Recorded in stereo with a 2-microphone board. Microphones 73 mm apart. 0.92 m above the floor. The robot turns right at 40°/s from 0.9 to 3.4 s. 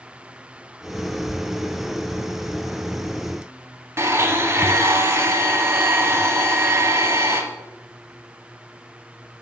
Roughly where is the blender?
Right.